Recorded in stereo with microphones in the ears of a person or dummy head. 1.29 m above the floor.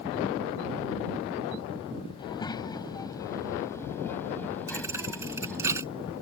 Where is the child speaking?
25° left (ahead or behind); by 5.7 s 5° left (ahead or behind).